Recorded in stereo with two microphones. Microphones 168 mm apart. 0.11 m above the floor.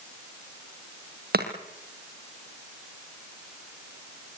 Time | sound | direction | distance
1.3 | chopping | 70° right (ahead or behind) | 3.5 m